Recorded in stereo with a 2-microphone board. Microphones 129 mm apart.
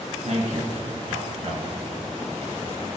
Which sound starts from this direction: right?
A man speaking, at 0.2 s.